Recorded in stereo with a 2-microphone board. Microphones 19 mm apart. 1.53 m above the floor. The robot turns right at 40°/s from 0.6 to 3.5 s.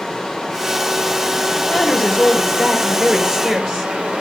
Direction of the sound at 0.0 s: 145° left.